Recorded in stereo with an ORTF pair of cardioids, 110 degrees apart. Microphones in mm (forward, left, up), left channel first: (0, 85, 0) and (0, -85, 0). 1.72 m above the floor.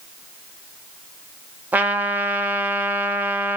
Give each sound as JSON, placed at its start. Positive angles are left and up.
{"t": 1.7, "sound": "a trumpet", "azimuth_deg": -10, "distance_m": 0.8}